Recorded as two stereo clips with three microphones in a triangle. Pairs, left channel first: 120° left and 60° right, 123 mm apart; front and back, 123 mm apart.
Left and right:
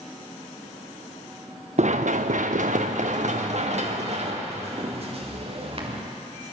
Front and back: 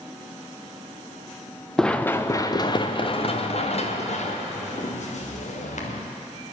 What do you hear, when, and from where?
1.8 s running footsteps: 85° right, 1.0 m; by 6.0 s 20° right, 3.5 m